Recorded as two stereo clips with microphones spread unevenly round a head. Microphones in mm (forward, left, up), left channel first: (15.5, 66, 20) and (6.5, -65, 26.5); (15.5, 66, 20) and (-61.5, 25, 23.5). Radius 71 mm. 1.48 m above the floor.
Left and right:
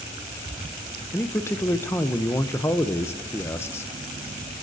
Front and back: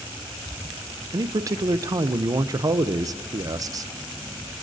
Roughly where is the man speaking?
Behind.